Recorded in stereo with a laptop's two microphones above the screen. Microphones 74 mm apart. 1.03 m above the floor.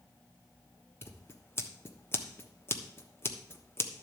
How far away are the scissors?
About 1.1 m.